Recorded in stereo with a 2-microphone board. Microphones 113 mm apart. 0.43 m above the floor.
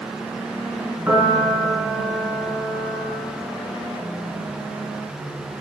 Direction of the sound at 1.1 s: 20° right (ahead or behind).